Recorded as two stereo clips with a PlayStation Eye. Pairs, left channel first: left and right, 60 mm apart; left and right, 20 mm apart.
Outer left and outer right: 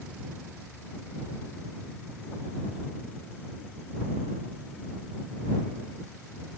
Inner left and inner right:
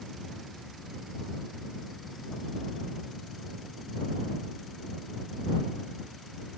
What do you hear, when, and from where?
Only background noise.